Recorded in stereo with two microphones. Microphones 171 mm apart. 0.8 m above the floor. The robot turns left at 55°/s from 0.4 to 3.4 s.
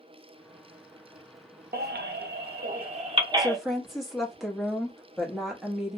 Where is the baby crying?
65° right (ahead or behind), 0.6 m; by 3.6 s 20° right (ahead or behind), 0.6 m.